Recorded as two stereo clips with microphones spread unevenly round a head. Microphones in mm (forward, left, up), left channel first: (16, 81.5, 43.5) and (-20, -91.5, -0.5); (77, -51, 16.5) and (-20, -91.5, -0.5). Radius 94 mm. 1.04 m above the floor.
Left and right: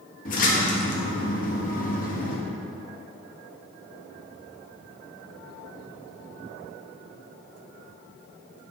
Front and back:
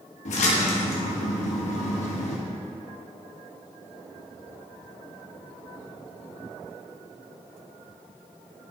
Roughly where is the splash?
Ahead left.